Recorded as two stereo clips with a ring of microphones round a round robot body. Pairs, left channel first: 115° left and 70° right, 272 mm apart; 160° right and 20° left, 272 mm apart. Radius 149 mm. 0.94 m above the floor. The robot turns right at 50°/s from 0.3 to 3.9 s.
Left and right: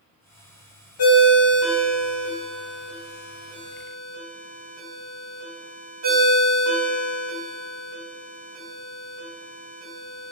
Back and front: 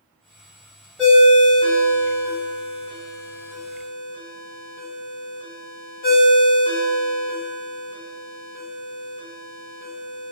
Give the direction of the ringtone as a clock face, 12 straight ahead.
8 o'clock.